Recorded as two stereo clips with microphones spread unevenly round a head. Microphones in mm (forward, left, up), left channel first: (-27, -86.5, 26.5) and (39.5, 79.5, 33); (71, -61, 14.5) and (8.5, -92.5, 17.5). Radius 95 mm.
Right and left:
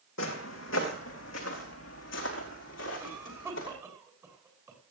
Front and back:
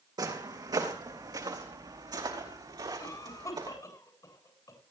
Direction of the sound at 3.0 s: 10° right.